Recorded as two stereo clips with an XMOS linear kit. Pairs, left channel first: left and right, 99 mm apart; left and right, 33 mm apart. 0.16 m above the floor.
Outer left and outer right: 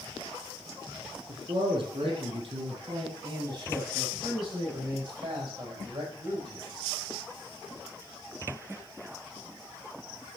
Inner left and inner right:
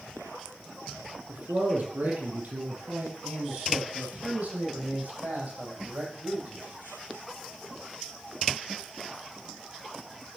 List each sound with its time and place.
1.3 s a man speaking: 55° right (ahead or behind), 4.5 m; by 6.7 s 40° right (ahead or behind), 7.5 m